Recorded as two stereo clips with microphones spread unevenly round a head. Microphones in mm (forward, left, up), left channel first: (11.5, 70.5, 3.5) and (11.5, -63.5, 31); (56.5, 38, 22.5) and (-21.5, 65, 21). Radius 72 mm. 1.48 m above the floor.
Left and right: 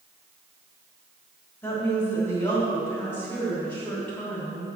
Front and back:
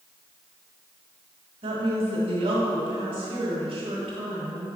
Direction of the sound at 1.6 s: 165° left.